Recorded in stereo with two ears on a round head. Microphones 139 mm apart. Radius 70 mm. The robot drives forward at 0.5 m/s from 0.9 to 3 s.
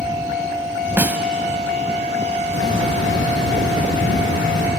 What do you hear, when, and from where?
1.0 s a snare drum: 10° right (ahead or behind), 0.9 m
2.5 s a hiss: 90° left, 7.5 m